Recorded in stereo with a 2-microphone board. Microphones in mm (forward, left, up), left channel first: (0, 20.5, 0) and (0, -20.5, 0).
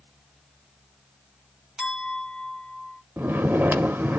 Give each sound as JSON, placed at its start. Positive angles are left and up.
{"t": 1.8, "sound": "a clink", "side_deg": -20, "distance_m": 1.9}
{"t": 3.2, "sound": "snoring", "side_deg": -60, "distance_m": 0.7}